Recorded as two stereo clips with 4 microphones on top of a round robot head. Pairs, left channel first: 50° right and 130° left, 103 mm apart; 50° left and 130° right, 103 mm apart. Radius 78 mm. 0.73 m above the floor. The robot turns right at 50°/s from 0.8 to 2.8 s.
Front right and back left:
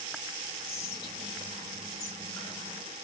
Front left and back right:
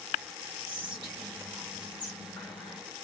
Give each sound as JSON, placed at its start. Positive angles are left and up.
{"t": 0.7, "sound": "whispering", "azimuth_deg": -110, "distance_m": 1.1}